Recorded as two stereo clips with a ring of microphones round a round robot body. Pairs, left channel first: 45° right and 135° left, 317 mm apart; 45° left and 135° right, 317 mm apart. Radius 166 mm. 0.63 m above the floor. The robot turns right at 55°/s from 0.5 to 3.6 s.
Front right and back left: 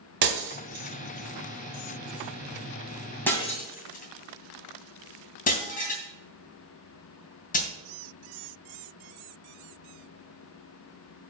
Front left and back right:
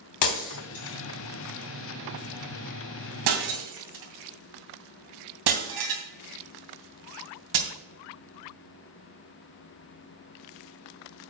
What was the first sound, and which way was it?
Breaking glass, 80° left.